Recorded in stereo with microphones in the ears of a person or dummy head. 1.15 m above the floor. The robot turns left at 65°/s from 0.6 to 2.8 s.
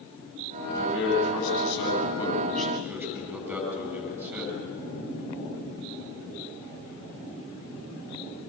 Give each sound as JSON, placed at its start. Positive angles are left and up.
{"t": 0.8, "sound": "a man speaking", "azimuth_deg": 120, "distance_m": 8.0}